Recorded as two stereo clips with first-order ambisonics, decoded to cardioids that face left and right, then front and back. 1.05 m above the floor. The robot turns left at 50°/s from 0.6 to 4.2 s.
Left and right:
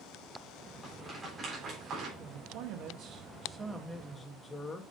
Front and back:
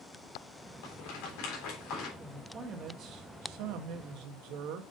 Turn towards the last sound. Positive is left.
turn(degrees=165)